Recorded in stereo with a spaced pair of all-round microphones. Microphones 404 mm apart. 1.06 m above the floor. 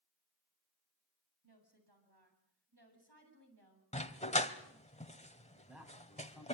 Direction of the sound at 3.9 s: 15° left (ahead or behind).